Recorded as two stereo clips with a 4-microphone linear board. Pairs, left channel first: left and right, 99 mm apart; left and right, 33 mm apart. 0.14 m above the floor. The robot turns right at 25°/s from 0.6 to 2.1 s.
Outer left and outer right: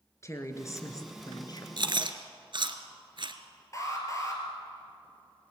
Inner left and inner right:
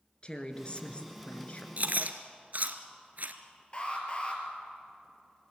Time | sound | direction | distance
0.2 | a woman speaking | 30° left (ahead or behind) | 2.5 m
1.8 | chewing | 55° right (ahead or behind) | 1.4 m
3.7 | an alarm | 30° left (ahead or behind) | 4.5 m